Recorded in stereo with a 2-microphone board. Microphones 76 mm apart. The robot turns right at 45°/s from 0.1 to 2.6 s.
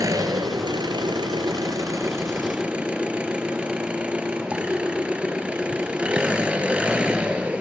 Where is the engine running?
130° right, 1.5 m; by 7.6 s 15° right, 1.5 m.